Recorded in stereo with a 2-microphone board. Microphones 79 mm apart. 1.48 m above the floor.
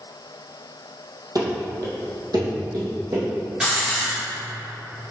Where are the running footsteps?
55° right (ahead or behind), 2.5 m; by 3.3 s 65° right (ahead or behind), 3.5 m.